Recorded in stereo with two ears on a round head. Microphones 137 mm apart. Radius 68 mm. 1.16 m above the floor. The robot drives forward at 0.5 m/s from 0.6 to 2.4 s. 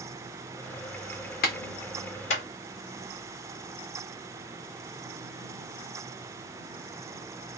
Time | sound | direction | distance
1.4 | a clap | 65° left (ahead or behind) | 1.0 m